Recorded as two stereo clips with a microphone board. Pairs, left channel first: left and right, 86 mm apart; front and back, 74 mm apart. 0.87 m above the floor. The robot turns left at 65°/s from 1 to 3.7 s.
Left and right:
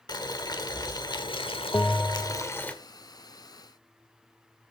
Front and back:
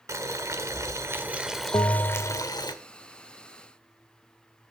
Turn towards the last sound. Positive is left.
turn(degrees=-100)